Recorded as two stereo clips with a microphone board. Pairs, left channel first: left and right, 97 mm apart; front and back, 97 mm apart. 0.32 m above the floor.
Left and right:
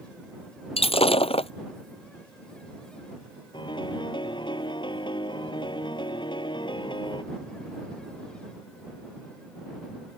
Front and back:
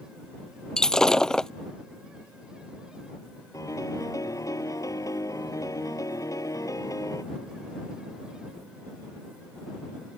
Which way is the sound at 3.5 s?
55° left.